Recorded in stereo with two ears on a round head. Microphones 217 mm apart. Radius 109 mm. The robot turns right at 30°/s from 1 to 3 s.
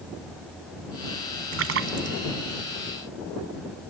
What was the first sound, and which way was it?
A splash, 65° right (ahead or behind).